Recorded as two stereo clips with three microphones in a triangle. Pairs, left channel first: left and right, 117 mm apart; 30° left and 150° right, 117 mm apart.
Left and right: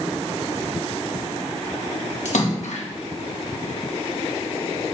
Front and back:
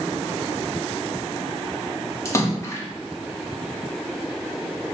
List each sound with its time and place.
2.2 s a splash: 95° left, 1.8 m